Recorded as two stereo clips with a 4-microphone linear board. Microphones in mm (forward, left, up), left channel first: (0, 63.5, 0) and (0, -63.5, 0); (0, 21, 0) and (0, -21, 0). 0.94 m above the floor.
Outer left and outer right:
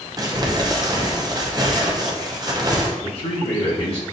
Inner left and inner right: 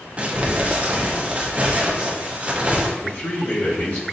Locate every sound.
0.2 s crumpling: 30° right (ahead or behind), 0.6 m
3.0 s a man speaking: 50° left (ahead or behind), 1.8 m